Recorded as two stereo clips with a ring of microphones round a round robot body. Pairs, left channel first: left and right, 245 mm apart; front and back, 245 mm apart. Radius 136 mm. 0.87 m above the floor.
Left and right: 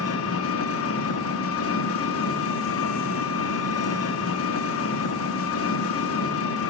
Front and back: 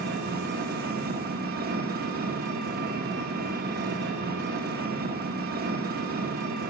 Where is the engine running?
120° left, 0.9 m.